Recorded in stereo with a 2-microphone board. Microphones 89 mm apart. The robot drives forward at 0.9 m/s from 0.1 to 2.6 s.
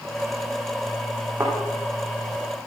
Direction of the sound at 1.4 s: 35° right (ahead or behind).